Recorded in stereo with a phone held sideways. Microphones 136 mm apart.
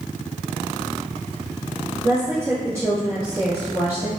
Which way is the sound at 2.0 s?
20° right (ahead or behind).